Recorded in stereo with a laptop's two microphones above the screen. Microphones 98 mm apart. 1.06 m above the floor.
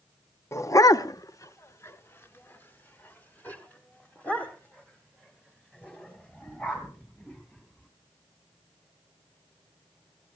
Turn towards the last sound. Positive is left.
turn(degrees=10)  # may be behind; listen again after turning